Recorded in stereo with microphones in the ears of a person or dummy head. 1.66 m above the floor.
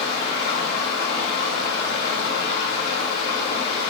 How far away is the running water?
About 5 m.